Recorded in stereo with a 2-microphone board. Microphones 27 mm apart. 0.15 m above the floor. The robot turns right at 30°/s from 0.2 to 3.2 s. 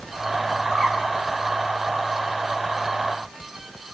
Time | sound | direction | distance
0.7 | a bird | 15° left (ahead or behind) | 6.5 m